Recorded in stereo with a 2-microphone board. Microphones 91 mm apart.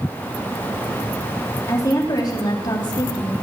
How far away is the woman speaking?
About 3 m.